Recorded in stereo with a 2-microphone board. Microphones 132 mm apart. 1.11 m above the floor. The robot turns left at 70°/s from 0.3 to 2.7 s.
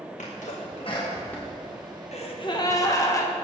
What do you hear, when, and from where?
0.2 s a sneeze: 70° left (ahead or behind), 1.3 m; by 2.7 s 70° right (ahead or behind), 1.3 m
2.1 s a gasp: 70° left, 1.2 m; by 3.3 s 30° left, 1.2 m